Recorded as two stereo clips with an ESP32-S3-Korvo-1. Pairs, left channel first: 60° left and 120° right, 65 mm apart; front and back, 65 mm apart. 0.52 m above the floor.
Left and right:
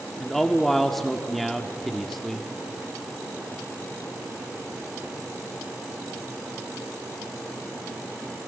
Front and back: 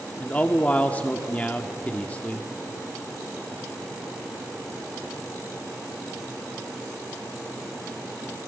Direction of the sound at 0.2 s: 25° right.